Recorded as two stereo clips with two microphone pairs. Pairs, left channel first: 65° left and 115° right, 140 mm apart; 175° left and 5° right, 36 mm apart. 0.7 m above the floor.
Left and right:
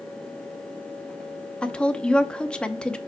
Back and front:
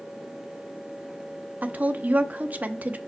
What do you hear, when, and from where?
1.6 s a woman speaking: 20° right, 0.8 m